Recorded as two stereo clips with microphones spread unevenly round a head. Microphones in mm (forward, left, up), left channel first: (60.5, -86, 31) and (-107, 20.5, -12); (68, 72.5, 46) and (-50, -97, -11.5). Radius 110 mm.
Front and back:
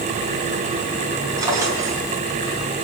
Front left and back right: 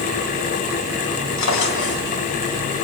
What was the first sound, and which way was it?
A drawer, 65° left.